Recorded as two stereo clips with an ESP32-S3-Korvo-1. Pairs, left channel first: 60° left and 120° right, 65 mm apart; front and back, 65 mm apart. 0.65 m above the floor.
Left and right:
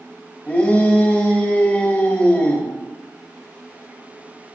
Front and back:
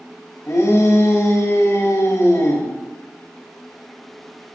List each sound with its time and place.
0.5 s a shout: 5° left, 1.5 m